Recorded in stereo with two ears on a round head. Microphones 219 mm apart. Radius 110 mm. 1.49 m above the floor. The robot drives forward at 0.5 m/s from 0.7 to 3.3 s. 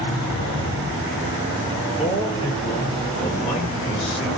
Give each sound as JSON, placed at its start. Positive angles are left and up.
{"t": 0.3, "sound": "a sliding door", "side_deg": 60, "distance_m": 7.0}
{"t": 2.0, "sound": "a man speaking", "side_deg": 20, "distance_m": 5.5}